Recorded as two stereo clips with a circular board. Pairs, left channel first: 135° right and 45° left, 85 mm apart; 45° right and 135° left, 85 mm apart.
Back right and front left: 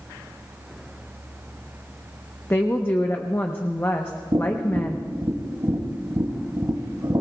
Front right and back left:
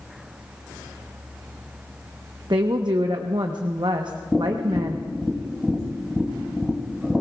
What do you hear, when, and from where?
2.5 s a woman speaking: 165° left, 0.9 m
4.3 s tapping: 45° left, 2.5 m